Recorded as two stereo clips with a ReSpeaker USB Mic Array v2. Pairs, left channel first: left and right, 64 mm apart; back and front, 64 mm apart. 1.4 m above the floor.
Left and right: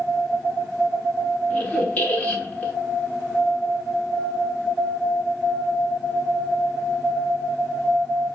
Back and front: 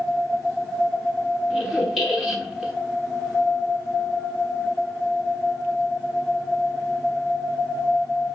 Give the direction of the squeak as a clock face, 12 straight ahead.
10 o'clock.